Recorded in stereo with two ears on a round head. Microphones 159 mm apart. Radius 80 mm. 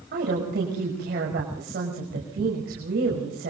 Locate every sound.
0.1 s a woman speaking: 55° right (ahead or behind), 6 m